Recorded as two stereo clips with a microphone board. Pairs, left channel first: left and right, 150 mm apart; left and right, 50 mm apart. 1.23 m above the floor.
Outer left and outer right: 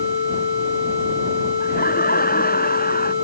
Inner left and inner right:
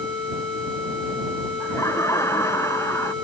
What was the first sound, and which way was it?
Laughter, 85° left.